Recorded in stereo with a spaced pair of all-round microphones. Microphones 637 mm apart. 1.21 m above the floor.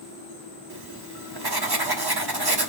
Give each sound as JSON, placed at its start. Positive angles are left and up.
{"t": 0.7, "sound": "writing", "side_deg": -40, "distance_m": 1.1}